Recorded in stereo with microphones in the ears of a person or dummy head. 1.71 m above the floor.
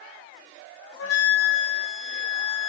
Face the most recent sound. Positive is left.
turn(degrees=80)